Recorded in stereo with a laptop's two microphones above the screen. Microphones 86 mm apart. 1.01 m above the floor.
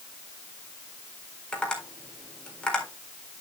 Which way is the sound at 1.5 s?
10° left (ahead or behind).